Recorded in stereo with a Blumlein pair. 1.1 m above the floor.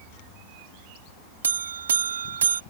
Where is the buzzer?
70° right.